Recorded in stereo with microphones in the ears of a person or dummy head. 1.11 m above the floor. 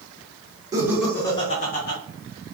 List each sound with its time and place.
0.7 s laughter: 15° right (ahead or behind), 0.8 m; by 2.0 s 50° left (ahead or behind), 1.0 m